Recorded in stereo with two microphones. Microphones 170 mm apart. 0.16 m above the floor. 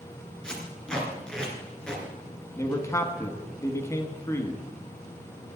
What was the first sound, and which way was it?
Tape being pulled, 5° left (ahead or behind).